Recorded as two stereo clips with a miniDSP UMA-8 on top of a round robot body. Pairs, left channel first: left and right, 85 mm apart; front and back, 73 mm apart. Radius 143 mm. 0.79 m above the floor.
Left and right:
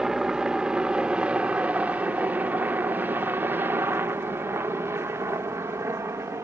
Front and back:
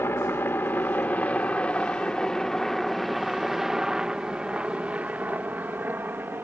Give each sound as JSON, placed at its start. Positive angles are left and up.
{"t": 0.0, "sound": "a helicopter", "azimuth_deg": -10}